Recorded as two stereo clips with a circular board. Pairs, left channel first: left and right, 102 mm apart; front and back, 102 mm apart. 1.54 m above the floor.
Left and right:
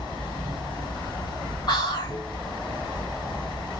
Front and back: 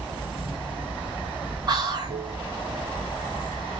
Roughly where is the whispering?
Behind left.